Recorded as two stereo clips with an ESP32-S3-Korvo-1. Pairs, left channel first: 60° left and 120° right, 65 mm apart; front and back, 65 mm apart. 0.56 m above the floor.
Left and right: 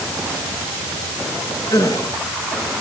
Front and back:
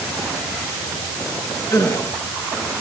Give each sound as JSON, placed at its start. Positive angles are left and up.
{"t": 1.7, "sound": "a gasp", "azimuth_deg": 30, "distance_m": 8.5}